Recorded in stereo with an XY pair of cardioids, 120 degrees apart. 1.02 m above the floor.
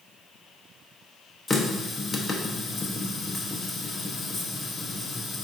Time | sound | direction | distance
1.5 | a running tap | 15° left | 0.6 m